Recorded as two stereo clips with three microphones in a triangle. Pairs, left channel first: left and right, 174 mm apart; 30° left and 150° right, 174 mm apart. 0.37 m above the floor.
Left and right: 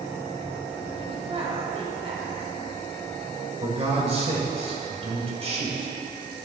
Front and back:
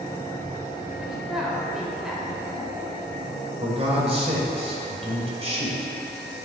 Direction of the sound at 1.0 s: 65° right.